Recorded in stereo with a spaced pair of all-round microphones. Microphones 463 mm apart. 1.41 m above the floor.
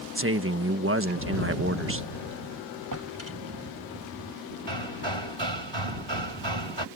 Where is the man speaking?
25° right (ahead or behind).